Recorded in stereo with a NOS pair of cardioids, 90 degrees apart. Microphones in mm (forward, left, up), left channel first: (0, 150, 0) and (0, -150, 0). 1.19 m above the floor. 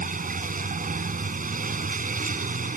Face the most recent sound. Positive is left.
turn(degrees=-25)